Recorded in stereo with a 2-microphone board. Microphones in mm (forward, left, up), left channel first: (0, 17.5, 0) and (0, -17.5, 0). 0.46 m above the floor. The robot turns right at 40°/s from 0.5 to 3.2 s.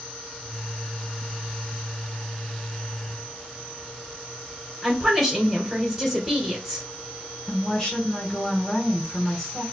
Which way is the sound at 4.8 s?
10° right (ahead or behind).